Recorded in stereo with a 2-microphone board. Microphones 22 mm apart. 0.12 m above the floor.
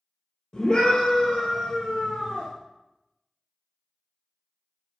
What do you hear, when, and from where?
0.5 s a scream: 35° left (ahead or behind), 2.5 m; by 2.5 s 55° left (ahead or behind), 2.0 m